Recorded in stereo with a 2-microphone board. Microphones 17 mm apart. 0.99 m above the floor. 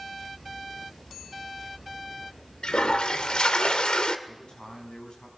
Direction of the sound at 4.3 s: 60° left (ahead or behind).